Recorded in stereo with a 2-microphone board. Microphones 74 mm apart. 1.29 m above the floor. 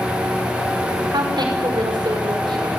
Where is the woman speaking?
80° right, 5.5 m.